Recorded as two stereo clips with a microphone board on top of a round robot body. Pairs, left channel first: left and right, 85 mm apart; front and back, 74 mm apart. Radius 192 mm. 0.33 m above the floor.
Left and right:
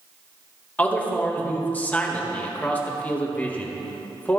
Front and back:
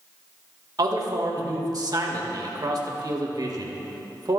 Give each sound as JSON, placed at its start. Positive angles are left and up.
{"t": 0.8, "sound": "a man speaking", "azimuth_deg": 160, "distance_m": 2.0}